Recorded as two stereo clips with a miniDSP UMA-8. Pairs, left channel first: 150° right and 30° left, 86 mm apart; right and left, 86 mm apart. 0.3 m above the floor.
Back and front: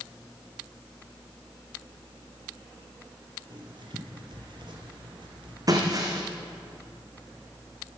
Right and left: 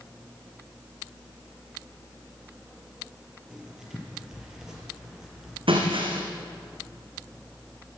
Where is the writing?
5° left, 5 m.